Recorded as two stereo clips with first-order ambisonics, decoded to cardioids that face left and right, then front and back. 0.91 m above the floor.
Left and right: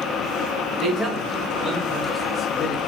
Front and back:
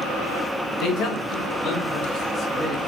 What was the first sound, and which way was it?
A man speaking, 10° right.